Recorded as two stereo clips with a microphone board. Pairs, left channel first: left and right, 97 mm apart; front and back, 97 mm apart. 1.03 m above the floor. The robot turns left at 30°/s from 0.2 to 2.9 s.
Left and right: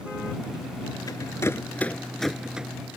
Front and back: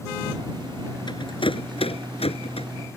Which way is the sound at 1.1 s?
40° left.